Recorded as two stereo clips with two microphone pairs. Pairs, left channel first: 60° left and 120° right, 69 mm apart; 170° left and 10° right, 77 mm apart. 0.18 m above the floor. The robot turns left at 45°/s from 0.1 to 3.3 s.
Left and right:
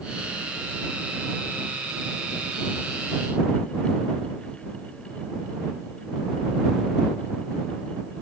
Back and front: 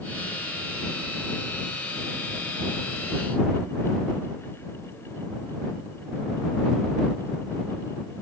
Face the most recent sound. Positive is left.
No sound to turn to.